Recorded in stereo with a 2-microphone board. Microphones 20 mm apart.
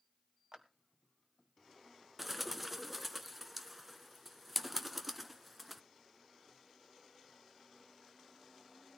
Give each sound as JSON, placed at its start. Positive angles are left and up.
{"t": 0.5, "sound": "a clap", "side_deg": -35, "distance_m": 1.5}
{"t": 2.2, "sound": "a bird", "side_deg": 0, "distance_m": 0.9}